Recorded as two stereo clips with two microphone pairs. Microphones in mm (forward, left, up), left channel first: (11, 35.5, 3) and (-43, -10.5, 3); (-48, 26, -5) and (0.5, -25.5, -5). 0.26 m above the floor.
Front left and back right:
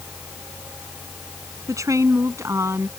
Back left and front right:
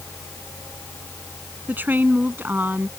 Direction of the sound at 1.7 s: 105° right.